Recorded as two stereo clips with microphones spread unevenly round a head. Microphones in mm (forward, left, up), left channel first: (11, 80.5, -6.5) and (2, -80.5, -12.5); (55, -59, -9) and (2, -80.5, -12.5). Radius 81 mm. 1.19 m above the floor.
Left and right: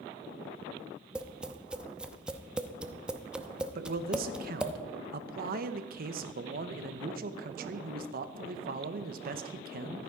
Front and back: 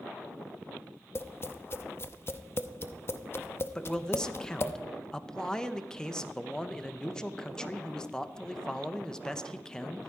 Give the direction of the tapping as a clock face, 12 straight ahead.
12 o'clock.